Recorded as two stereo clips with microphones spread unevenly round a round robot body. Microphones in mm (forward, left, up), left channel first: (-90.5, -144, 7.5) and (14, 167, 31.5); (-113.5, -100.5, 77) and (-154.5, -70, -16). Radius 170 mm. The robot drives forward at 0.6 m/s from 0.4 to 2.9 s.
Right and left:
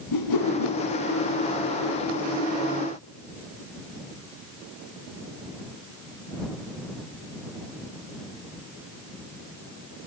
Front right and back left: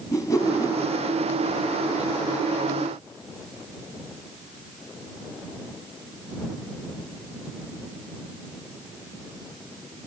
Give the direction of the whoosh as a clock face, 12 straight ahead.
3 o'clock.